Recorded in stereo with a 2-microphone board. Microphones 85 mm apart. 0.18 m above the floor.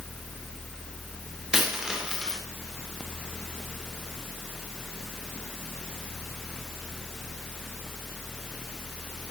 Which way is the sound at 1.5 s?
10° right (ahead or behind).